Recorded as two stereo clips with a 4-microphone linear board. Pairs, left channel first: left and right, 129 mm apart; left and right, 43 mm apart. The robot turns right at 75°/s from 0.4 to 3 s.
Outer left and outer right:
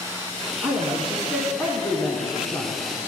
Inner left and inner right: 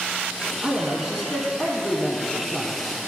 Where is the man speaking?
15° right (ahead or behind), 1.1 m; by 2.8 s 20° left (ahead or behind), 1.1 m.